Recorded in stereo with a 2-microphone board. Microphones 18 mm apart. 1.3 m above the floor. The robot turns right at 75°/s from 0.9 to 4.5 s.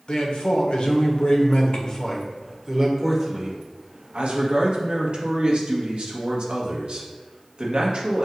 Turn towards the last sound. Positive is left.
turn(degrees=-60)